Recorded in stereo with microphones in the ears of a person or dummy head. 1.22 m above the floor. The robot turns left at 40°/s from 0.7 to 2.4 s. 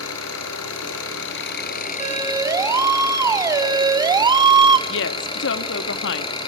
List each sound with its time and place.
0.0 s an engine running: 90° left, 4.5 m; by 6.5 s 25° left, 4.5 m
2.0 s a siren: 30° right (ahead or behind), 3.5 m; by 4.8 s 20° right (ahead or behind), 1.2 m
4.9 s a woman speaking: 65° left (ahead or behind), 1.7 m